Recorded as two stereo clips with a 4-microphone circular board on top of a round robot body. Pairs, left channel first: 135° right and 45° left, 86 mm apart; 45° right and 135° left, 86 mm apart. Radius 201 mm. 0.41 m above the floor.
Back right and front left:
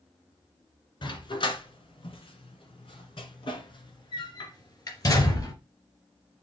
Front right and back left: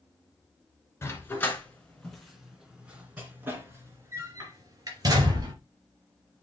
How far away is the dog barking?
About 2 m.